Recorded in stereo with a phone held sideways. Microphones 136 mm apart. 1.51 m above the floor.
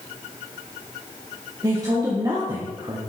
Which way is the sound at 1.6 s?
25° right (ahead or behind).